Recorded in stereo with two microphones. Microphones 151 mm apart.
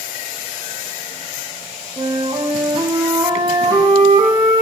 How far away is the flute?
About 8.5 m.